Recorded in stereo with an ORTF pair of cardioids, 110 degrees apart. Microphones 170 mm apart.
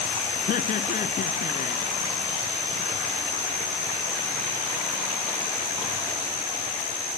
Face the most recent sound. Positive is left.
turn(degrees=50)